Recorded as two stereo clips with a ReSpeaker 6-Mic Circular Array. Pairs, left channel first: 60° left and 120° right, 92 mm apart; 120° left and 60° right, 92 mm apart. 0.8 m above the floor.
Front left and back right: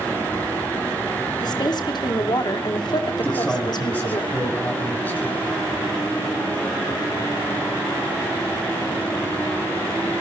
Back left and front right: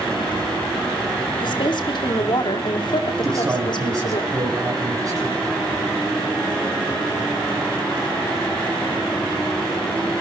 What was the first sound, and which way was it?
A woman speaking, 95° left.